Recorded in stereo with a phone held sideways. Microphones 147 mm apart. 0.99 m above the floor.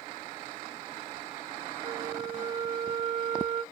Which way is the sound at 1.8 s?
55° right (ahead or behind).